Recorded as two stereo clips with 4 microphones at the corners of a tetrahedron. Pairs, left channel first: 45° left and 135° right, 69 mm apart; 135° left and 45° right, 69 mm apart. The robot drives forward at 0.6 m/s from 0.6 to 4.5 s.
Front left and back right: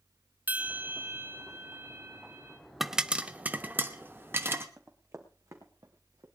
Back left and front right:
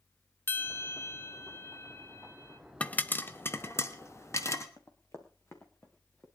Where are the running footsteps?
170° left, 2.5 m; by 6.3 s 165° right, 3.5 m.